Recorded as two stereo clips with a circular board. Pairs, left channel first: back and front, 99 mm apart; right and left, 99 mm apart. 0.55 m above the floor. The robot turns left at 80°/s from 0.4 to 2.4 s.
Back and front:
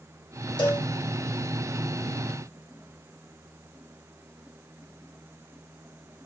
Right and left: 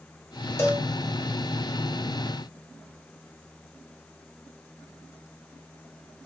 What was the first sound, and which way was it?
A cowbell, 155° right.